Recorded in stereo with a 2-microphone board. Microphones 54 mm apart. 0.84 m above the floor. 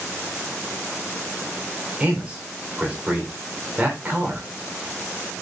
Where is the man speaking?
25° right (ahead or behind), 3 m.